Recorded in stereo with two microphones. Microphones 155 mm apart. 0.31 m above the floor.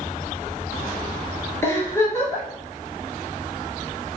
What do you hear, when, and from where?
1.6 s a giggle: 20° left (ahead or behind), 1.0 m